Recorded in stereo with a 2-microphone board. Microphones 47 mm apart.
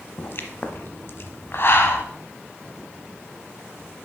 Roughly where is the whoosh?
I don't hear a whoosh.